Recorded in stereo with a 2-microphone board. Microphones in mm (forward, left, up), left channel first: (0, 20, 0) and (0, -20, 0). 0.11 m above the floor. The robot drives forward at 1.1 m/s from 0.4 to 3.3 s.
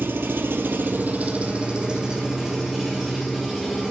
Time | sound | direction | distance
0.0 | an engine running | 65° right (ahead or behind) | 0.8 m